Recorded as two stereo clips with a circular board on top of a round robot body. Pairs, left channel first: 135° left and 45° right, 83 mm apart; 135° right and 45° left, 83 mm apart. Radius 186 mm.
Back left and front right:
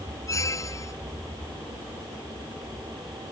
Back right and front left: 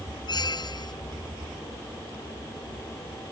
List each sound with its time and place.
0.3 s a squeak: 175° right